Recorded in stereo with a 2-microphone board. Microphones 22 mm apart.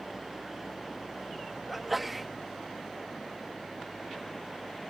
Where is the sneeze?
10° right (ahead or behind).